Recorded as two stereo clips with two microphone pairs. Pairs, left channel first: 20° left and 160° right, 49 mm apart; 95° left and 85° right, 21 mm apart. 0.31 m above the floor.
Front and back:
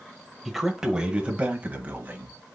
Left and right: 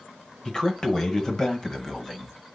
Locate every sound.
0.5 s a man speaking: 115° left, 1.0 m; by 2.4 s 160° left, 1.7 m